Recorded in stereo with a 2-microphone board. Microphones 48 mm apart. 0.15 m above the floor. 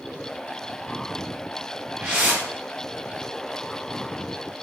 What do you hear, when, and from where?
2.0 s a whoosh: 25° right (ahead or behind), 1.3 m